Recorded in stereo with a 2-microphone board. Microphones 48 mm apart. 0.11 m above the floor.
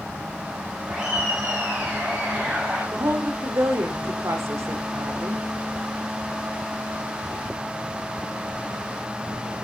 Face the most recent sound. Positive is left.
turn(degrees=-75)  # may be behind; listen again after turning